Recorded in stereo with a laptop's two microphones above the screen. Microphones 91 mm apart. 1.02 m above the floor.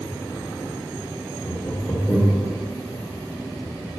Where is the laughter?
5° right (ahead or behind), 1.3 m; by 2.5 s 15° left (ahead or behind), 0.8 m.